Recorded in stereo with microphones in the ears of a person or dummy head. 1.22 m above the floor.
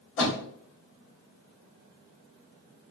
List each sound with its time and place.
0.2 s a door slam: 70° left (ahead or behind), 2 m